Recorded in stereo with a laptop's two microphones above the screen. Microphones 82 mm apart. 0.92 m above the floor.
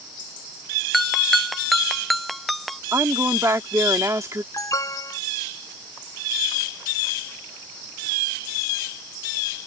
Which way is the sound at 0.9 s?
Centre (ahead or behind).